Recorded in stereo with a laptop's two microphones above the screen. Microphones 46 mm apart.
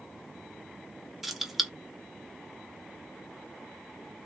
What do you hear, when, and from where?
1.2 s keys jangling: 5° right (ahead or behind), 0.7 m